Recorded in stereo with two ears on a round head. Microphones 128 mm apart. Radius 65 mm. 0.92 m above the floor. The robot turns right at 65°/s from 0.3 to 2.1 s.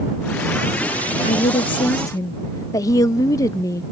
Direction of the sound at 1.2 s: 90° left.